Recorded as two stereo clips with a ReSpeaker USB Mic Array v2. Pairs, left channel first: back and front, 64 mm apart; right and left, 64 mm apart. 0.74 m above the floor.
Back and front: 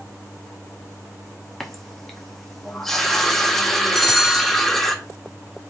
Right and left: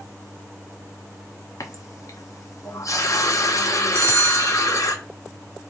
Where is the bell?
95° left, 0.7 m.